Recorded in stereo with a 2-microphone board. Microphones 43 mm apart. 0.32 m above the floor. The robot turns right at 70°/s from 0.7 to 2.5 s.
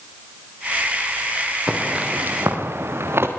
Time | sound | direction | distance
1.7 | footsteps | 10° right (ahead or behind) | 6.5 m